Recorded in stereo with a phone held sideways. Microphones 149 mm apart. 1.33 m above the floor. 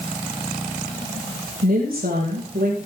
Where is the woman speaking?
80° right, 5 m; by 2.8 s 90° right, 5.5 m.